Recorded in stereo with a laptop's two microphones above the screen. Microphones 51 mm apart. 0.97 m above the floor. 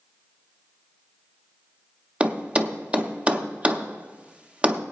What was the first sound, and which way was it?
A thud, 25° right (ahead or behind).